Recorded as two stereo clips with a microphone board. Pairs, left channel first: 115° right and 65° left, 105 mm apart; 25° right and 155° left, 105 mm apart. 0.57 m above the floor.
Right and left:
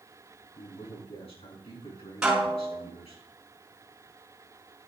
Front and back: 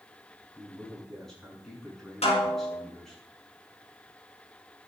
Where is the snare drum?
15° right, 5 m.